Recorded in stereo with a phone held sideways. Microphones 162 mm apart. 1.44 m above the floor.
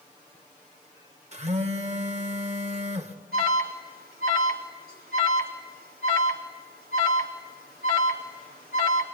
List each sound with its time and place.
1.3 s a phone buzzing: 45° right (ahead or behind), 1.7 m
3.3 s an alarm: 70° right (ahead or behind), 3.5 m